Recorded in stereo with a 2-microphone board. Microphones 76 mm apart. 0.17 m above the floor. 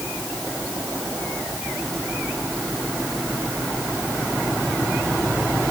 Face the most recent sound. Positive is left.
No sound to turn to.